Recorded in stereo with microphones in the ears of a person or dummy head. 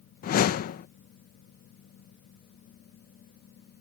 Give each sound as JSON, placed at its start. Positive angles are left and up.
{"t": 0.2, "sound": "a whoosh", "side_deg": 50}